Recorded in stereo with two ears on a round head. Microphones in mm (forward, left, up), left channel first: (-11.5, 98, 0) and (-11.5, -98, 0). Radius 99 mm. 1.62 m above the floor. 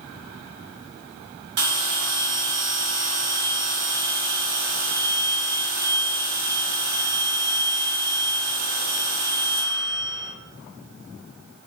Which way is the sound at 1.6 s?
50° right (ahead or behind).